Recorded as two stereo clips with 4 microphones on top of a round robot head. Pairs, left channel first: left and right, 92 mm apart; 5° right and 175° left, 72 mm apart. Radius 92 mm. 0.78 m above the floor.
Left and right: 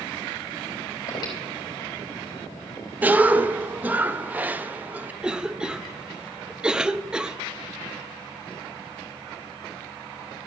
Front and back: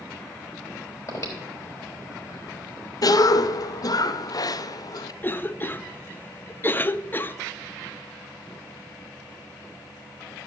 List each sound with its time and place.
1.1 s breathing: 40° left, 3.5 m
3.0 s a cough: 20° right, 0.6 m
5.2 s a cough: 20° right, 0.5 m